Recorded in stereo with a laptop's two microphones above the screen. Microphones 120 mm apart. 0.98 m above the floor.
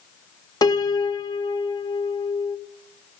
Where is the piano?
35° left (ahead or behind), 0.8 m.